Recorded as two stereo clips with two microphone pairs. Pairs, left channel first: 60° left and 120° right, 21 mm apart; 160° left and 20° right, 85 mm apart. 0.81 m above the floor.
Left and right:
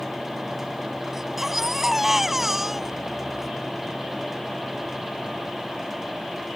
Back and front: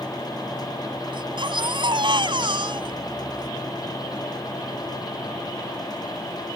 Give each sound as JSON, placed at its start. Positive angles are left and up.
{"t": 1.1, "sound": "a baby crying", "azimuth_deg": -45}